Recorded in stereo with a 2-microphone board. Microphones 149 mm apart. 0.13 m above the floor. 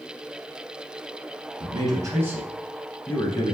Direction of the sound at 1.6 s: 35° right (ahead or behind).